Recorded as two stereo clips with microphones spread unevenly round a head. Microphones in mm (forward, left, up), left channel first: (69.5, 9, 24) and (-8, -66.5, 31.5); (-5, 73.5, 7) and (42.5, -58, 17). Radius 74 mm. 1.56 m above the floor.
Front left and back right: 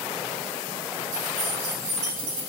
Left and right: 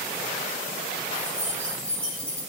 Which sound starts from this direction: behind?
Keys jangling, at 1.1 s.